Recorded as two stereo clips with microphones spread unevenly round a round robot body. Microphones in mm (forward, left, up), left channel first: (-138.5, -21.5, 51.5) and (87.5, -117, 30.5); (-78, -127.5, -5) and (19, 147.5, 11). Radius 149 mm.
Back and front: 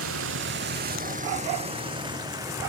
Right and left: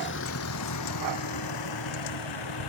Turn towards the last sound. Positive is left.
turn(degrees=-100)